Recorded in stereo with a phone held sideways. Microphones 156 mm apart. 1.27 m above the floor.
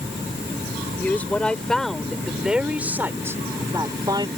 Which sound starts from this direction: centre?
A woman speaking, at 1.0 s.